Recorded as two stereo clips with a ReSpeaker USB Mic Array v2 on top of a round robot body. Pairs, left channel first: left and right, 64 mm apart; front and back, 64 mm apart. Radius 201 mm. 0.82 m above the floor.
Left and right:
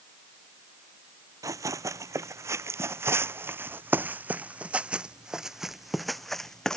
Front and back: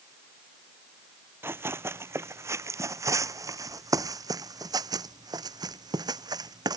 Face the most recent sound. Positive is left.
turn(degrees=170)